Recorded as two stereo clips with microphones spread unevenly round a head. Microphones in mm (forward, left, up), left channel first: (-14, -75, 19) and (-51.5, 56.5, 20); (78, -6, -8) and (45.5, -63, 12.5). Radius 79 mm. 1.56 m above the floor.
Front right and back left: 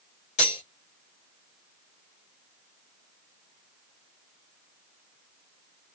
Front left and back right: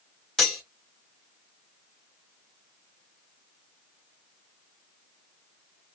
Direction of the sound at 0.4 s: 25° right.